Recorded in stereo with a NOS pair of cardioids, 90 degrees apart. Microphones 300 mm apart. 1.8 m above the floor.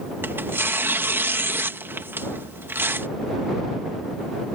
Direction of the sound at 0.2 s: 5° right.